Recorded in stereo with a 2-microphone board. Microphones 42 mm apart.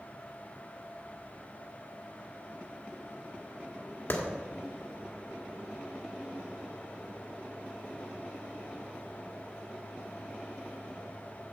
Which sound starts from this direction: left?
A clap, at 4.1 s.